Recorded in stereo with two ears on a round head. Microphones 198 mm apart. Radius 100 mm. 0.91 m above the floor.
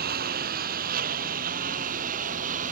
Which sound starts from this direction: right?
A lawn mower, at 0.0 s.